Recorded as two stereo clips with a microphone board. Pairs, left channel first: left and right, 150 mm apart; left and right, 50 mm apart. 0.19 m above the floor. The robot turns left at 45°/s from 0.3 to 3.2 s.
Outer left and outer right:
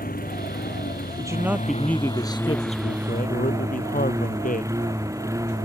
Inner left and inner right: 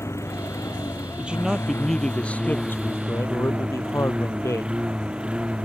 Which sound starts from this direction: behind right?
A man speaking, at 1.2 s.